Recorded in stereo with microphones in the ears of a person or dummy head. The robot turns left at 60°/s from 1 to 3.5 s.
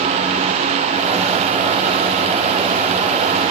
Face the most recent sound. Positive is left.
No sound to turn to.